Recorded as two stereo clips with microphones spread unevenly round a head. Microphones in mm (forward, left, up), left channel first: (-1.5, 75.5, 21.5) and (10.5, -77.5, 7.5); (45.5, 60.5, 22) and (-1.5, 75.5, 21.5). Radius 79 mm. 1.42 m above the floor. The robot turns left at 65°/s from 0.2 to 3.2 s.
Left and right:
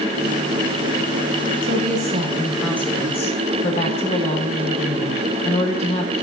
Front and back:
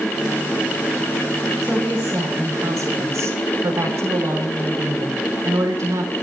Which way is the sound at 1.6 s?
110° right.